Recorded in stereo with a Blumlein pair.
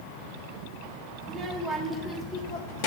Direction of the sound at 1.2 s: 20° right.